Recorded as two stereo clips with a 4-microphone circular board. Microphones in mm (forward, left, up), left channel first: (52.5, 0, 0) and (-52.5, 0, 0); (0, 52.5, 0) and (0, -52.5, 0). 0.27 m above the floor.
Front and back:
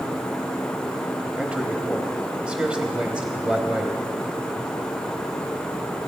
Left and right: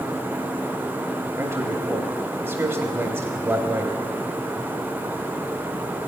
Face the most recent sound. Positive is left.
turn(degrees=-115)